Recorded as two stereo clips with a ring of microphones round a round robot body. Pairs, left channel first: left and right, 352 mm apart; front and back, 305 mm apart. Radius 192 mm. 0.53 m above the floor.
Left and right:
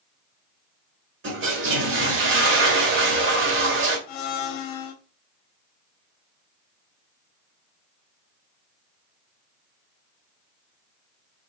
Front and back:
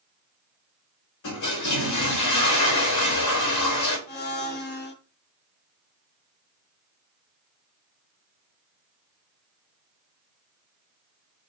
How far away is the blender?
About 1.0 m.